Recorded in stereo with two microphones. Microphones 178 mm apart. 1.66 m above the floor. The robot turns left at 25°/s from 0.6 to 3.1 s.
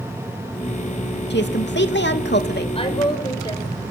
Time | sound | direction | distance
1.3 | a woman speaking | 105° left | 2.5 m
2.8 | a woman speaking | 35° left (ahead or behind) | 7 m